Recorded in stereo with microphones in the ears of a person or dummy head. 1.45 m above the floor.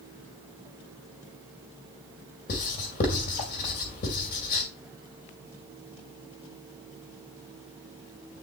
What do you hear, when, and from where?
2.5 s writing: 45° left (ahead or behind), 2 m